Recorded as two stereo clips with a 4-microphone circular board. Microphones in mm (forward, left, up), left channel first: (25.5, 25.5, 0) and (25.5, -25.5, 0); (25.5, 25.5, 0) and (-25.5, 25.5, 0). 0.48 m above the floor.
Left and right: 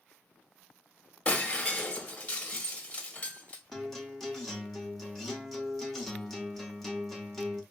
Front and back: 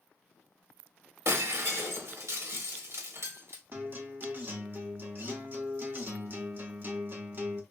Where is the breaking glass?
160° left, 1.6 m.